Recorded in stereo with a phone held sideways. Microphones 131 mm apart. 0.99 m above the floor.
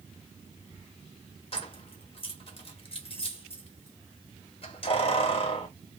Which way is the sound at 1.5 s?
45° left (ahead or behind).